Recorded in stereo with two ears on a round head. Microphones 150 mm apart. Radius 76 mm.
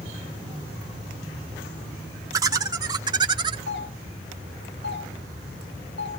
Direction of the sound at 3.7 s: 70° left (ahead or behind).